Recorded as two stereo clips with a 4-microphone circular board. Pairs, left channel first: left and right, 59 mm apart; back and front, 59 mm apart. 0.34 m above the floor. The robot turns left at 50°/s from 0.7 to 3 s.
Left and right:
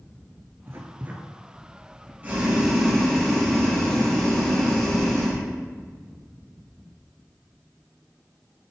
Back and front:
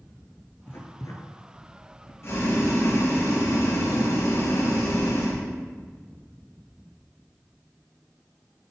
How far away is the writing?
About 1.4 m.